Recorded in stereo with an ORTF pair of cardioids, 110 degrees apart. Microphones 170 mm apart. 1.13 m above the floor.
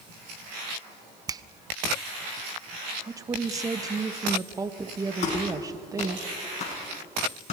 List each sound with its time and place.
1.3 s a finger snap: 20° right, 0.6 m
3.1 s a woman speaking: 20° right, 1.4 m
5.2 s a clap: 40° left, 8 m